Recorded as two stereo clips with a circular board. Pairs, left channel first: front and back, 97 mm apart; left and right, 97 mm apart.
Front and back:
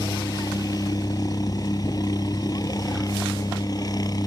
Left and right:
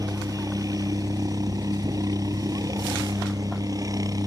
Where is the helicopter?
45° right.